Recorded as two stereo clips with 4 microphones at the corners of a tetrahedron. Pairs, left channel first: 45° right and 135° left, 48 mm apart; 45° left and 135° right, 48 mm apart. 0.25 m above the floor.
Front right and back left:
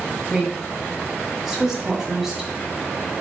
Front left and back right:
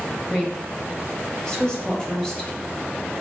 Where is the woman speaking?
70° left, 1.1 m.